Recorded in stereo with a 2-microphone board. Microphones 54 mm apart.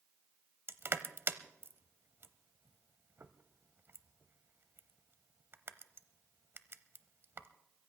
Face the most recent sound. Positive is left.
turn(degrees=-50)  # may be behind; listen again after turning